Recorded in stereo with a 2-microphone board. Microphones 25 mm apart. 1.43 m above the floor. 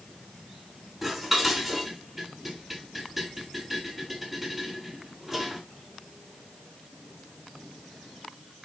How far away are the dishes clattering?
About 7 m.